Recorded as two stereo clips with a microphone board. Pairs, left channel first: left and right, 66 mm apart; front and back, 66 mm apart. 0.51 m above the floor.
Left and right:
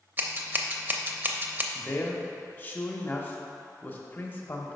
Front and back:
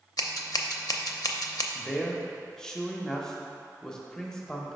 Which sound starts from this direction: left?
A man speaking, at 1.8 s.